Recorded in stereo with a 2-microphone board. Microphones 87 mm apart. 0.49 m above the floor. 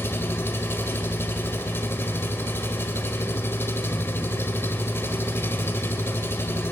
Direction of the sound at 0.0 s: 25° left (ahead or behind).